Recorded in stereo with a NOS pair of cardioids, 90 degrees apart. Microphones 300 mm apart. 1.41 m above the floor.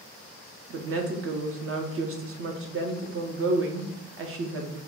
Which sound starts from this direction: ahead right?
A woman speaking, at 0.7 s.